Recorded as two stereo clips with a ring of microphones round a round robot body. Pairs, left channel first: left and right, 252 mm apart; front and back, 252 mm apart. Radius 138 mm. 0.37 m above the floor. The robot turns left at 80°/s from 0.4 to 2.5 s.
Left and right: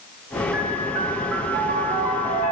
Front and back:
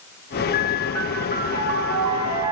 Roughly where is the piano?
Ahead right.